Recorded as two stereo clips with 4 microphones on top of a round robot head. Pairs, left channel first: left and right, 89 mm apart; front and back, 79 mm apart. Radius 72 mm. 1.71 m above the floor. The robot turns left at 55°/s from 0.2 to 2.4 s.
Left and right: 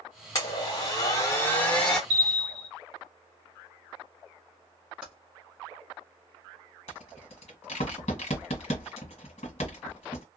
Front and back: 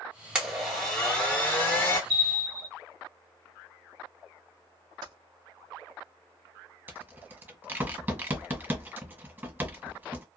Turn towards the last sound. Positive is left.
turn(degrees=120)